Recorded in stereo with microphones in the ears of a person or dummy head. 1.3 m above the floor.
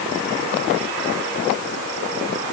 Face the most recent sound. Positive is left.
No sound to turn to.